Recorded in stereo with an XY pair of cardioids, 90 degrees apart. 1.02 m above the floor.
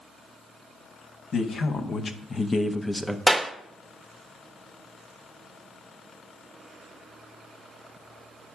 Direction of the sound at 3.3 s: 15° right.